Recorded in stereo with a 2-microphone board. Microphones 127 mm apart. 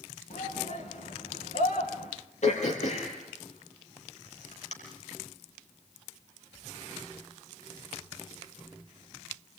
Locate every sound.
0.3 s a shout: 75° left (ahead or behind), 4.5 m
2.4 s throat clearing: 65° left (ahead or behind), 5.5 m